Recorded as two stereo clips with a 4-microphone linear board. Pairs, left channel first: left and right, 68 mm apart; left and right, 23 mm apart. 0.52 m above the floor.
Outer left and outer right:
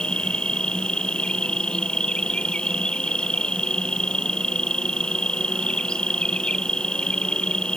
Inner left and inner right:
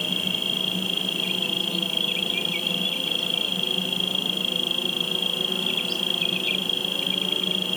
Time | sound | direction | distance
0.0 | an insect | 15° left (ahead or behind) | ?